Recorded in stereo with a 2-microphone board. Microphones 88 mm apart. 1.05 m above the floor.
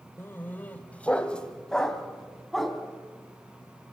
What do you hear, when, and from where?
0.2 s a dog barking: 25° left (ahead or behind), 1.6 m; by 2.8 s centre (ahead or behind), 3 m